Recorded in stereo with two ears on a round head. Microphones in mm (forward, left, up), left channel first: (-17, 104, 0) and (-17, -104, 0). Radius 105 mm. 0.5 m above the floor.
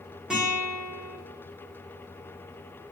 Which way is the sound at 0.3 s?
5° right (ahead or behind).